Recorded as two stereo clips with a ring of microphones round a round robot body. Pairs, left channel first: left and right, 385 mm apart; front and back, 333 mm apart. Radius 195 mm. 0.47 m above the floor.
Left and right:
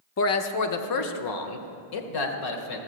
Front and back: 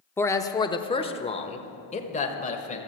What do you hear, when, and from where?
0.2 s a man speaking: 80° left, 0.8 m; by 2.8 s 70° left, 1.9 m